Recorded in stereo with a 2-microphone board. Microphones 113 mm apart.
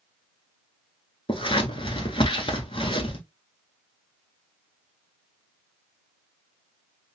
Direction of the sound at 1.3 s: 55° left (ahead or behind).